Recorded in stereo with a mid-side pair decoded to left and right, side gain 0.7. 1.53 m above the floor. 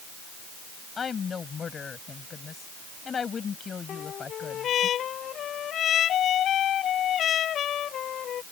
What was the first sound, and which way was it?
A woman speaking, 30° left.